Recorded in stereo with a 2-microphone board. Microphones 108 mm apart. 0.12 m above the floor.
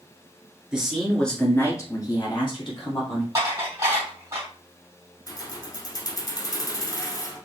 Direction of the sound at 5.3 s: 35° left (ahead or behind).